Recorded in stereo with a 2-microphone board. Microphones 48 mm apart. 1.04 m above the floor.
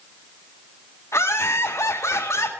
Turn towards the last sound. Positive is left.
turn(degrees=85)